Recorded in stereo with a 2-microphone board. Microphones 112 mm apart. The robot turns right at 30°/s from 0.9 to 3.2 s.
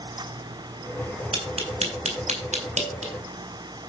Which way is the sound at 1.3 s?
50° right (ahead or behind).